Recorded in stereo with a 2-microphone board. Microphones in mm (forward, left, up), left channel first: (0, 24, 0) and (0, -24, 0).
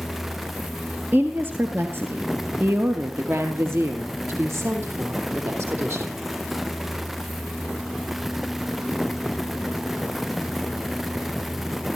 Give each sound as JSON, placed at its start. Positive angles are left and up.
{"t": 1.1, "sound": "a woman speaking", "side_deg": -45, "distance_m": 2.5}